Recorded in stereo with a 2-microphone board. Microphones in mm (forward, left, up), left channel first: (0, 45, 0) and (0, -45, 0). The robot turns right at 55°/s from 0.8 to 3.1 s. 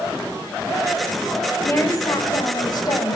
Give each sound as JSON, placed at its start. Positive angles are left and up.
{"t": 1.6, "sound": "a woman speaking", "azimuth_deg": 35, "distance_m": 1.7}